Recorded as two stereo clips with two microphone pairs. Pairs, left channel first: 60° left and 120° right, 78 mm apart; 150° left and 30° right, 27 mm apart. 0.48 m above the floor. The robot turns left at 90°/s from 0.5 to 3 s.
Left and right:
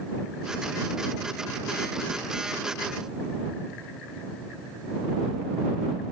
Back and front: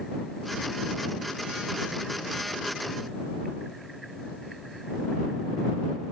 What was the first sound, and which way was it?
Only background noise.